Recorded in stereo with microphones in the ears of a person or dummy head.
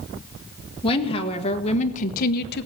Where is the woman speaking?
25° left (ahead or behind), 1.8 m; by 2.6 s 60° left (ahead or behind), 0.8 m.